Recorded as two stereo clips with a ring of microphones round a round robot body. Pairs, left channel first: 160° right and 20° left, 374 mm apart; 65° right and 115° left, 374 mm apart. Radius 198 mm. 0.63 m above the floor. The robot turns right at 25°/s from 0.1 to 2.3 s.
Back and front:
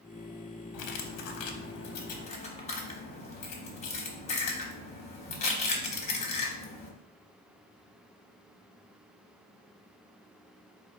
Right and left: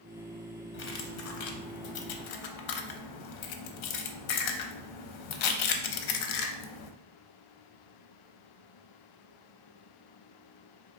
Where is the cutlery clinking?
125° right, 0.5 m; by 6.9 s 85° right, 0.5 m.